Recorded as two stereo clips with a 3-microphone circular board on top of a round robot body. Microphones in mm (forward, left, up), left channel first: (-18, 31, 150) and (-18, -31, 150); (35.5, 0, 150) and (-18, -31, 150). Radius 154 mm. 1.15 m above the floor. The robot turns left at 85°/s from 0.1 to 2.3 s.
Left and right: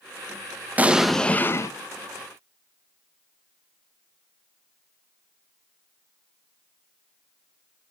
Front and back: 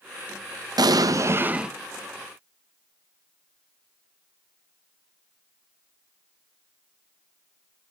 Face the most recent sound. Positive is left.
turn(degrees=75)